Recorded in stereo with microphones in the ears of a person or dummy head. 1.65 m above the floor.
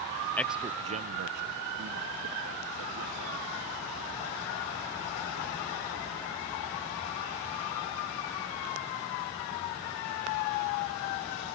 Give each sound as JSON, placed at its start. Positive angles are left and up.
{"t": 0.4, "sound": "a man speaking", "side_deg": 10}